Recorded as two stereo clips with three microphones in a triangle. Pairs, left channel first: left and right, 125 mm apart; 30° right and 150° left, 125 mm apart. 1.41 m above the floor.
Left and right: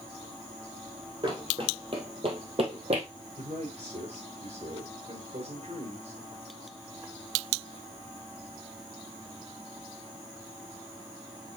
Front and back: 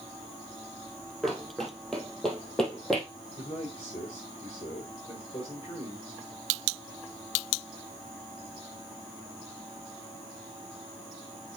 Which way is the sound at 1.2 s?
120° right.